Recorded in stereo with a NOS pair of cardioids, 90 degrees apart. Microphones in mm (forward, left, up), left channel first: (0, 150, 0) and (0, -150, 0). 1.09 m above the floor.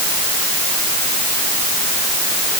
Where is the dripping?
No dripping in this recording.